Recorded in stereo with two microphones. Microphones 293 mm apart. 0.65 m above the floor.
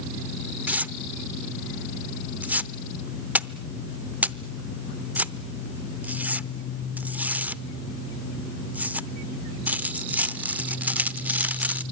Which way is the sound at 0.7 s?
5° right (ahead or behind).